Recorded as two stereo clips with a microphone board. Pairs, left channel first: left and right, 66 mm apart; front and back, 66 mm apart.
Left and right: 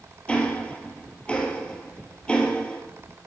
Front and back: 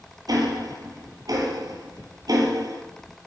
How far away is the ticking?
About 1.8 m.